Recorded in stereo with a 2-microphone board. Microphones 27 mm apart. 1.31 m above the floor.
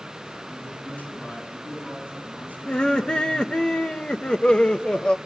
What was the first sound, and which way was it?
A man speaking, 85° left.